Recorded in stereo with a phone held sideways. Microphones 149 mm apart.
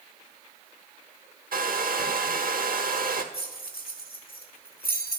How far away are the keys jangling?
About 1.5 m.